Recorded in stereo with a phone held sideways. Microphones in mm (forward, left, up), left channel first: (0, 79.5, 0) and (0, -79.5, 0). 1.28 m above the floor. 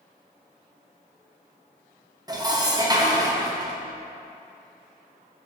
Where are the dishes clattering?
25° right (ahead or behind), 0.9 m.